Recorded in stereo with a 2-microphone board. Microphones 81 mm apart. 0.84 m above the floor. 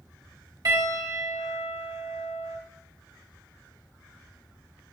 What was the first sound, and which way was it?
A piano, 40° right (ahead or behind).